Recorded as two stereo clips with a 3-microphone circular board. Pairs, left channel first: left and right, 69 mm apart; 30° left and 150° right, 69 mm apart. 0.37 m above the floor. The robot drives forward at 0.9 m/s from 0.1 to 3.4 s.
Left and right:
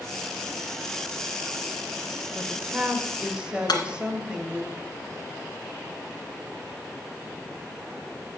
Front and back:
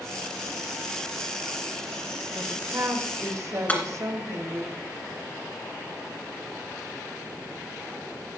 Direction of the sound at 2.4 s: 140° right.